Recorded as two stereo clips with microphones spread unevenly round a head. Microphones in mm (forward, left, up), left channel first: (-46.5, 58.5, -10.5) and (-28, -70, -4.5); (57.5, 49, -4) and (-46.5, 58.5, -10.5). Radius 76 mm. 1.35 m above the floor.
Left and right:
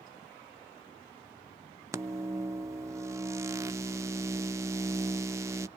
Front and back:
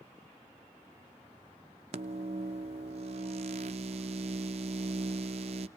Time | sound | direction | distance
1.9 | a microwave | 145° right | 0.7 m